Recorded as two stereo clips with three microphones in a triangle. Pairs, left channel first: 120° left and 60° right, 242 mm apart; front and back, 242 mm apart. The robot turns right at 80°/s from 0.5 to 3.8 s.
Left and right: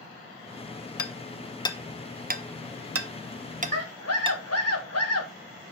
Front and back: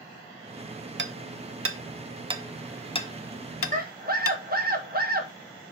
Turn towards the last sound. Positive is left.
turn(degrees=125)